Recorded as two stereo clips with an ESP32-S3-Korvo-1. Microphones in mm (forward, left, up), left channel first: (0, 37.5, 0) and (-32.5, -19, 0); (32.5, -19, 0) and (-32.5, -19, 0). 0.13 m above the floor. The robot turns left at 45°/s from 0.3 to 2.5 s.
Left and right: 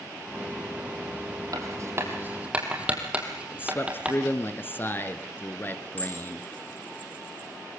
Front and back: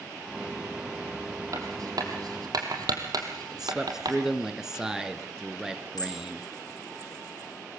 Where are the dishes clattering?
Straight ahead, 6.5 m.